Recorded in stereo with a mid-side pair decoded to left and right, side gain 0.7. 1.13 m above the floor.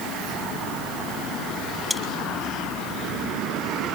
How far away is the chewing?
About 6 m.